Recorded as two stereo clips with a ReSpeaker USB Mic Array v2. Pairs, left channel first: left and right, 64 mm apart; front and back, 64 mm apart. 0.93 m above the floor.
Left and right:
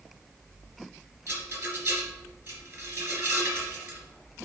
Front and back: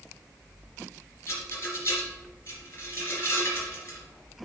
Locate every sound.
1.3 s a rattle: 50° right, 3 m